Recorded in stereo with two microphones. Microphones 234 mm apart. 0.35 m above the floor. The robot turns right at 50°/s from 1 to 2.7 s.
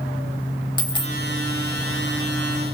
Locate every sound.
0.8 s a dropped coin: 20° left (ahead or behind), 0.6 m; by 1.1 s 25° left (ahead or behind), 0.6 m